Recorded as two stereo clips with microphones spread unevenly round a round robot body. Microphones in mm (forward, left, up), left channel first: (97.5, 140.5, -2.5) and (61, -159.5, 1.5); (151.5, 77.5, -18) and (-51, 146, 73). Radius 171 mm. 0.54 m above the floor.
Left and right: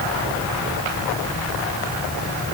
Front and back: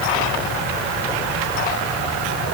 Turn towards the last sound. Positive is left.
No sound to turn to.